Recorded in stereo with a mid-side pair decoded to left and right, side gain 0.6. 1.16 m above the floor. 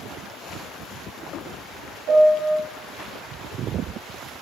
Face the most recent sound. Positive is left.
turn(degrees=-55)